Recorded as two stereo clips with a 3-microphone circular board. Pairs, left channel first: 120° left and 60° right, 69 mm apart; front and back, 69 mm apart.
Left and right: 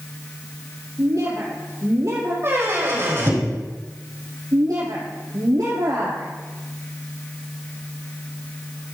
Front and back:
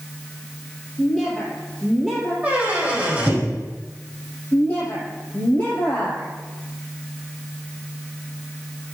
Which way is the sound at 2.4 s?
110° right.